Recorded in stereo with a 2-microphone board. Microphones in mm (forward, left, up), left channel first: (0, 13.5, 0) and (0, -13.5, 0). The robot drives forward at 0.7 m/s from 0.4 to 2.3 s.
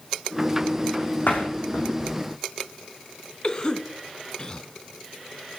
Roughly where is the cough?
Left.